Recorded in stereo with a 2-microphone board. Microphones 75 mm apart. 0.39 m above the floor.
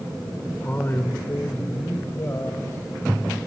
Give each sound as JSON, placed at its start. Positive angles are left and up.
{"t": 0.6, "sound": "a man speaking", "side_deg": 25, "distance_m": 1.4}